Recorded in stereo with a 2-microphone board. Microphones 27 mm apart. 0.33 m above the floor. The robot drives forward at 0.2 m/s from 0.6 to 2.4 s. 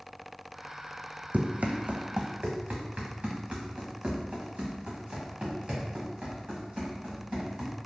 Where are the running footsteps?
60° right (ahead or behind), 0.6 m; by 7.7 s 35° right (ahead or behind), 4.5 m.